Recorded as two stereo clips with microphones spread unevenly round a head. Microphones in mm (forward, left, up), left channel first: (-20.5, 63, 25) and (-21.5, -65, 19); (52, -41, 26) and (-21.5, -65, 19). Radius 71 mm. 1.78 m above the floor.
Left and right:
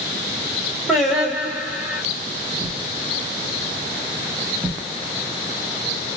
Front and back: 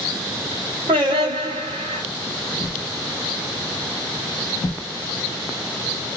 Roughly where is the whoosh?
Ahead.